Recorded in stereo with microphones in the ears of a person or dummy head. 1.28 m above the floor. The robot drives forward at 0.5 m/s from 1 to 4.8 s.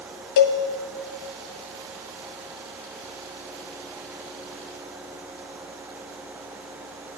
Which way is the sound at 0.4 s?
60° left (ahead or behind).